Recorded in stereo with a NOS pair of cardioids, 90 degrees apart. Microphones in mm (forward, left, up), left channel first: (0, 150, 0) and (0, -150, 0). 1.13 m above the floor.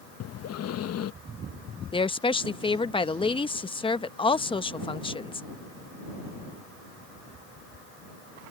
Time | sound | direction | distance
0.2 | breathing | 55° left | ?
1.9 | a woman speaking | 15° left | ?